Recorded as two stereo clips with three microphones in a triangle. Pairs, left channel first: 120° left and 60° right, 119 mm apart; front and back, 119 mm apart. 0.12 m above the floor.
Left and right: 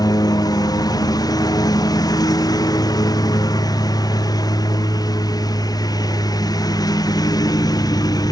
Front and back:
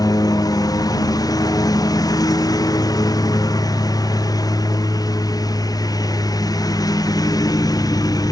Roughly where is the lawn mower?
Ahead left.